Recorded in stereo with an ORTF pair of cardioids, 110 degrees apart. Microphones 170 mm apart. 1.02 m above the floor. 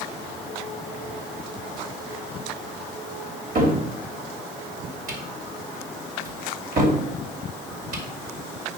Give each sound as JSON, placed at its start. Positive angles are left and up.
{"t": 3.5, "sound": "a cupboard door", "azimuth_deg": -55, "distance_m": 3.0}